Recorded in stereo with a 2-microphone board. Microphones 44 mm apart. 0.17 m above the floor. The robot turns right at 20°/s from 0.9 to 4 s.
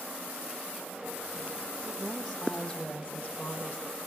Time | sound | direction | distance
2.0 | a woman speaking | straight ahead | 6 m